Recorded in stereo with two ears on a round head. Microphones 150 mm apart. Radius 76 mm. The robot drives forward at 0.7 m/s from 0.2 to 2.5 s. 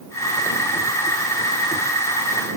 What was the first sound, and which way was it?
Only background noise.